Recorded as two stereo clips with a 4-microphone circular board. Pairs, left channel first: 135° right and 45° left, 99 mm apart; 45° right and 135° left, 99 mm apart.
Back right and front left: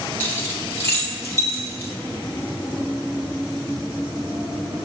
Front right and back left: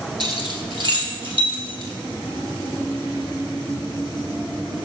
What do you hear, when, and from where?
0.2 s keys jangling: 160° left, 1.3 m; by 1.9 s 170° left, 3 m